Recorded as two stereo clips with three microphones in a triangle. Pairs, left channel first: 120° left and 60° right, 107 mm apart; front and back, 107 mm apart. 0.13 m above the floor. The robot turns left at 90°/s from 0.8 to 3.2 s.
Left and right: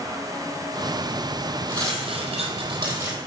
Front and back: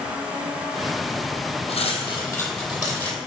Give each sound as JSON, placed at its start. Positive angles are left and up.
{"t": 1.7, "sound": "cutlery clinking", "azimuth_deg": -5, "distance_m": 2.5}